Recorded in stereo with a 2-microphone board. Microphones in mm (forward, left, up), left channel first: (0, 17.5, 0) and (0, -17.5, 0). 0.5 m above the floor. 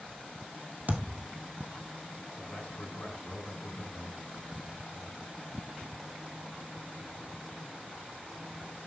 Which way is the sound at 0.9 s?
45° right (ahead or behind).